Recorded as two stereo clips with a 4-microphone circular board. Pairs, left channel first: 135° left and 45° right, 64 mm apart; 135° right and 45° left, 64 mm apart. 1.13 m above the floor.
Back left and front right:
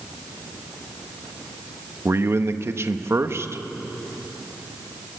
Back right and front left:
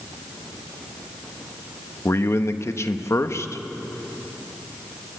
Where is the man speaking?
90° right, 1.1 m.